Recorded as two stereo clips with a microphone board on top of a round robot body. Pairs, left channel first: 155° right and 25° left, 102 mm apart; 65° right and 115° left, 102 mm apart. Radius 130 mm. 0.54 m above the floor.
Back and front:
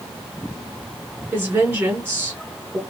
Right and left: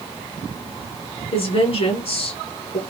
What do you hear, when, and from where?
1.3 s a woman speaking: 50° right, 2.5 m